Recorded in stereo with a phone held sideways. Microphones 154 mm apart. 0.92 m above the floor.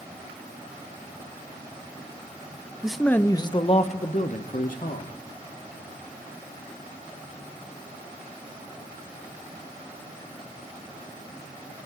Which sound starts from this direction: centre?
A man speaking, at 2.8 s.